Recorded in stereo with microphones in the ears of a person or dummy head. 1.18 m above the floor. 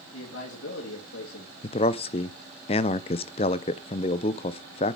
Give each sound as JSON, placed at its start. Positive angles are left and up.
{"t": 0.1, "sound": "a man speaking", "side_deg": 75, "distance_m": 2.5}
{"t": 1.6, "sound": "a man speaking", "side_deg": 30, "distance_m": 0.5}